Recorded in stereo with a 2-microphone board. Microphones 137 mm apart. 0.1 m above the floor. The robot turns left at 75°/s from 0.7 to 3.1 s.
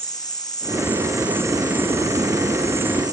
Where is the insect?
35° left, 1.7 m; by 3.1 s 145° right, 1.7 m.